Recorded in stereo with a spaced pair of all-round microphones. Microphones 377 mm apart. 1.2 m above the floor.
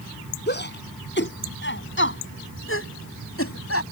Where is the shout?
25° left (ahead or behind); by 3.8 s 40° left (ahead or behind).